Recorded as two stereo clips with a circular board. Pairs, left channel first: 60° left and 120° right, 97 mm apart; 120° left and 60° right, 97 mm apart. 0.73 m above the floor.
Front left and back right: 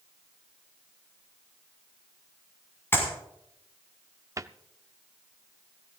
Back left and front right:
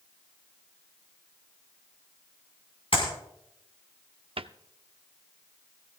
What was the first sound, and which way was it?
A clap, 125° left.